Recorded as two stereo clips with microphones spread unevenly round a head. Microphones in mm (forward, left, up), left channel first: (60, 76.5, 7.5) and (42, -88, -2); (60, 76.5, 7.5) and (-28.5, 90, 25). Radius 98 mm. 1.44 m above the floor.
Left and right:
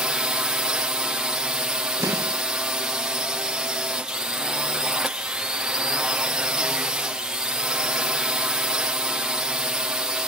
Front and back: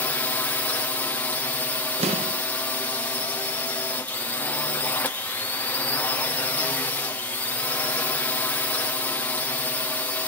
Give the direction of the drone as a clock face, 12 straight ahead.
1 o'clock.